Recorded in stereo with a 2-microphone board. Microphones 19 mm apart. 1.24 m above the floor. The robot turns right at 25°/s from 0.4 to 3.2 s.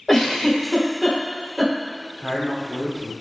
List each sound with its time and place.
0.1 s a giggle: 5° left (ahead or behind), 1.1 m; by 1.7 s 15° right (ahead or behind), 1.1 m
2.2 s a man speaking: 35° left (ahead or behind), 0.9 m; by 3.1 s 10° left (ahead or behind), 0.9 m